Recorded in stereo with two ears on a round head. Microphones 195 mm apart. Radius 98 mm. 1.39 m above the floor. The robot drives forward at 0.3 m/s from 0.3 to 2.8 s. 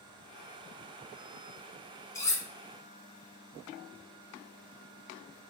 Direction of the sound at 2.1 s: 15° left (ahead or behind).